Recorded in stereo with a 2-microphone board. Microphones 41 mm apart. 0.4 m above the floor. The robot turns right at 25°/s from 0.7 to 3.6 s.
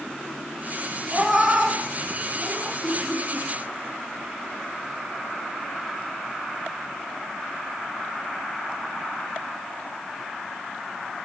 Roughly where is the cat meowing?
Centre.